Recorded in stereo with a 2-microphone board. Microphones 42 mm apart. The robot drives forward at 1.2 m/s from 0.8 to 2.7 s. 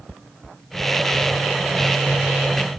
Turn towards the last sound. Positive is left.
No sound to turn to.